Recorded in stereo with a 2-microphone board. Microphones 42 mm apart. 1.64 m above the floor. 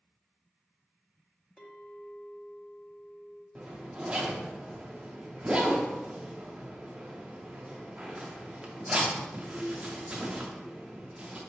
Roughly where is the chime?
I don't hear a chime.